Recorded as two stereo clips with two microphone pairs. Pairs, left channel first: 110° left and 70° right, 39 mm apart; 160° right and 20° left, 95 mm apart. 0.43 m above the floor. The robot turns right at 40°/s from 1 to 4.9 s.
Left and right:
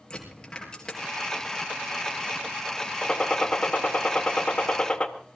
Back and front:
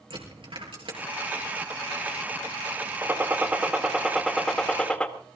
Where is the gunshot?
60° left, 1.3 m; by 5.1 s 135° left, 1.3 m.